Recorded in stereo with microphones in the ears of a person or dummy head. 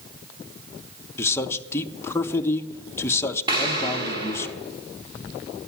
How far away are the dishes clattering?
No dishes clattering in this recording.